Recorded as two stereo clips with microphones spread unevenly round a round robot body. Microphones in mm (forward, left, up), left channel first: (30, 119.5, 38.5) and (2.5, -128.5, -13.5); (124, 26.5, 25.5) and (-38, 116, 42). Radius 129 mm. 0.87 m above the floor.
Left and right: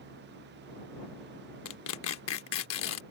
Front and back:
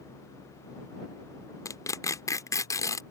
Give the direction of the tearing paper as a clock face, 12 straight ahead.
11 o'clock.